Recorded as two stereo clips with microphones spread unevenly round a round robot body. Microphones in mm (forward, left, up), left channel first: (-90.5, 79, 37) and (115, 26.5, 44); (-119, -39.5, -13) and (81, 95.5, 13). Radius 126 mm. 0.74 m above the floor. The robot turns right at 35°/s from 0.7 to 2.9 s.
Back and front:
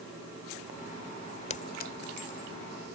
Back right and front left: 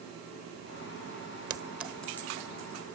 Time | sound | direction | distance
1.5 | a clink | 110° left | ?